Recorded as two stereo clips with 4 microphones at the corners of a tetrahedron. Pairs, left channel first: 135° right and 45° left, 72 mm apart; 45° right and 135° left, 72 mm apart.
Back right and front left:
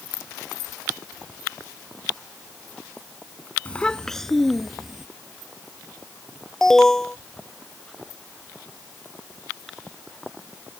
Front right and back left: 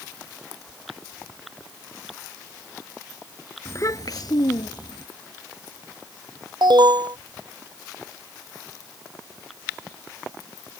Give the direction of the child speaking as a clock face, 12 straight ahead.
2 o'clock.